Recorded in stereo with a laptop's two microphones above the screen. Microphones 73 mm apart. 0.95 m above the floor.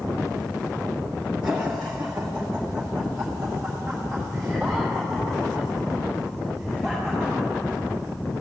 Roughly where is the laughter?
Centre.